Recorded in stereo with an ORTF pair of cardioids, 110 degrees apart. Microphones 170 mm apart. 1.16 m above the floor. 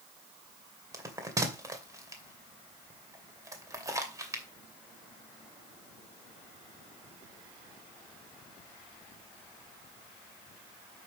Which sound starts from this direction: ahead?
A bell, at 0.9 s.